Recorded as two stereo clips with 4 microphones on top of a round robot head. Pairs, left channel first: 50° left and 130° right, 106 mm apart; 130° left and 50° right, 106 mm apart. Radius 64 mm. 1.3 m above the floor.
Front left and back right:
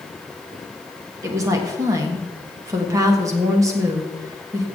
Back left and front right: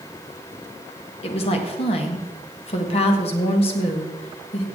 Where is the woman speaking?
165° left, 1.5 m.